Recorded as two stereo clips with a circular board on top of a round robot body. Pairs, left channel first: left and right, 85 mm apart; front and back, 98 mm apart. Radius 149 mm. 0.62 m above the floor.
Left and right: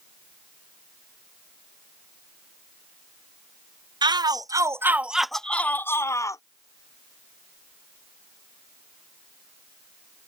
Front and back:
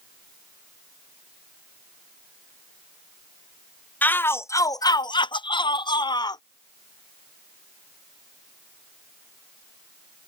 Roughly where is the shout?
Right.